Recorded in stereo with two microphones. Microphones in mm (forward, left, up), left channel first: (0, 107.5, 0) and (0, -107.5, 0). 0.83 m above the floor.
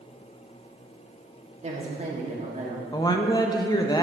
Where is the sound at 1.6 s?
30° right (ahead or behind), 1.8 m.